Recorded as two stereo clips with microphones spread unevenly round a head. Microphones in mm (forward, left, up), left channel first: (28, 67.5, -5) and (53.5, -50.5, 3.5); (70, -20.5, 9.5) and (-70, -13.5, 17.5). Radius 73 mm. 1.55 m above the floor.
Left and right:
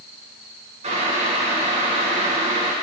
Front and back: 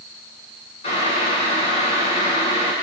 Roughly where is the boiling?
Ahead right.